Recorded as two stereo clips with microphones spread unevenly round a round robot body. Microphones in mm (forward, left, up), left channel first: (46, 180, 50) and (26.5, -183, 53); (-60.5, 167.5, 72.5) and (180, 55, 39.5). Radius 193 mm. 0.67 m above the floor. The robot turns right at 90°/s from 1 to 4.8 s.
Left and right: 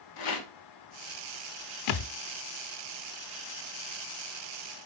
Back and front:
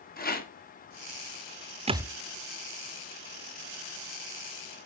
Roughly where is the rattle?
Left.